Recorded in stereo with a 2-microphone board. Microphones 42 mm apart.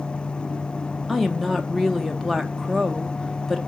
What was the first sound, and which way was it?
A woman speaking, 5° left (ahead or behind).